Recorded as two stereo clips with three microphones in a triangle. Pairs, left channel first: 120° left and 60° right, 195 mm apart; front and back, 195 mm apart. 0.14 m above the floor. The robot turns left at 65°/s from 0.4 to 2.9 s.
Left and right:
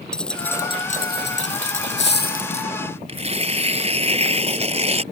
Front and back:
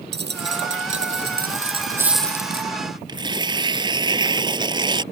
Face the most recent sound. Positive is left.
turn(degrees=-115)